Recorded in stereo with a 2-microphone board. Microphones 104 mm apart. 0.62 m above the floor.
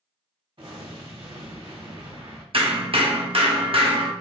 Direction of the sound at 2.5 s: 60° right (ahead or behind).